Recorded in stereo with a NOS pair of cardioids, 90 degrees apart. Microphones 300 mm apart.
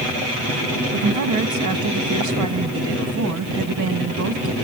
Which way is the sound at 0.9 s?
70° right.